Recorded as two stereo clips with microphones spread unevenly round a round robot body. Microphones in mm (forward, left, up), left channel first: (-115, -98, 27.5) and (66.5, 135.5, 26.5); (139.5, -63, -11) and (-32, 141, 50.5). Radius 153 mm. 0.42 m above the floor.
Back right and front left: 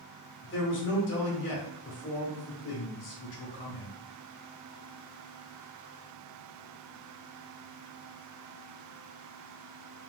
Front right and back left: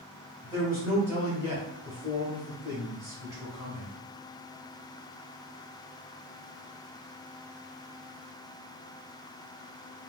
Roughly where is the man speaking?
Behind right.